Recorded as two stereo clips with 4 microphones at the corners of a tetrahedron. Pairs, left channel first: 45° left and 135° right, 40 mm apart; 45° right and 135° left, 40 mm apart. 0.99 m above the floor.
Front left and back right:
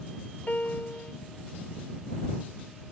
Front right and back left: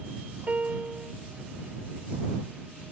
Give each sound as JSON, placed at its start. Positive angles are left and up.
{"t": 0.5, "sound": "a piano", "azimuth_deg": 85}